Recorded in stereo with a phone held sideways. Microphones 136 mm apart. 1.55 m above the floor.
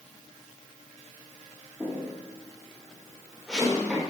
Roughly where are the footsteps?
Centre.